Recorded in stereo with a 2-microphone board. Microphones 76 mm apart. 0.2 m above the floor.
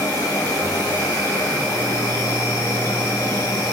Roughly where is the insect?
Left.